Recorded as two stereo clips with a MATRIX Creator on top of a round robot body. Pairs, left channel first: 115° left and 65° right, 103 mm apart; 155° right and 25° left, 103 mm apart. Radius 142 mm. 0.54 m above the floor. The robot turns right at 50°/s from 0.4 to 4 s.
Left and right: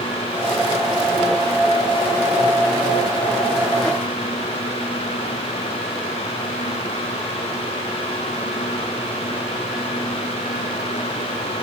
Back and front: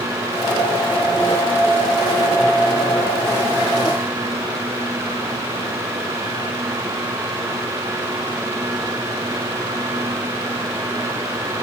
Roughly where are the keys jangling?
No keys jangling in this recording.